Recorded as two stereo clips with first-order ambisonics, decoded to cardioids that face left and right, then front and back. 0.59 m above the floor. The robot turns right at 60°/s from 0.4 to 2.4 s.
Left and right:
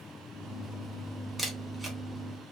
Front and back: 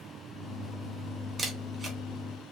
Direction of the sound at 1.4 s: Straight behind.